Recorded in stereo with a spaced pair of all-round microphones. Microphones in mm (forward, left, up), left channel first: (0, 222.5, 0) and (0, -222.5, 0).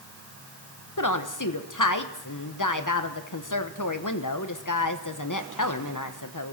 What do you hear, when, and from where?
1.0 s a woman speaking: 45° left (ahead or behind), 1.0 m